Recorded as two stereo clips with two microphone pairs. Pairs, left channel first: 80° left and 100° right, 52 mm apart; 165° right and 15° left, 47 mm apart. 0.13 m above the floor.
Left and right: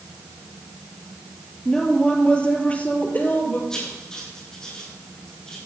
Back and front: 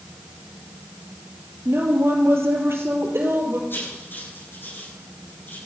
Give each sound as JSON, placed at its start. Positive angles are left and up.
{"t": 1.6, "sound": "a woman speaking", "azimuth_deg": 5, "distance_m": 3.5}
{"t": 3.7, "sound": "writing", "azimuth_deg": 160, "distance_m": 7.5}